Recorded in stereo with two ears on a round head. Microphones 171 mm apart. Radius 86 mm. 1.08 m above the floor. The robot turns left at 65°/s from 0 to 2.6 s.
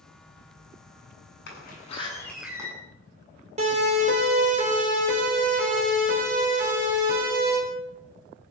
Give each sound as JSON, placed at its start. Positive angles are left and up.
{"t": 1.5, "sound": "a door slam", "azimuth_deg": 60, "distance_m": 9.5}
{"t": 3.6, "sound": "a siren", "side_deg": -35, "distance_m": 6.0}